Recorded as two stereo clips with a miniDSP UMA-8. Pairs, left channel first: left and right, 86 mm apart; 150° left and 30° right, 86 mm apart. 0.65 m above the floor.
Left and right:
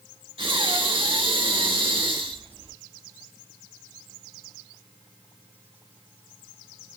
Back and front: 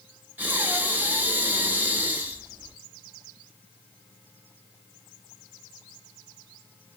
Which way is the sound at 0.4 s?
100° right.